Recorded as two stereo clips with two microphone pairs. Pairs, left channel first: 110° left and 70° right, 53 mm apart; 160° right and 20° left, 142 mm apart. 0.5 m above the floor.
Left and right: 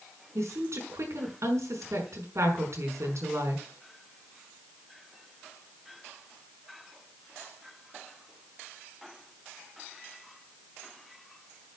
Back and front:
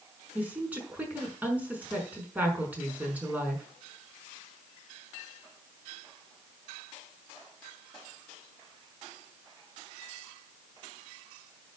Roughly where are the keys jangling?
No keys jangling in this recording.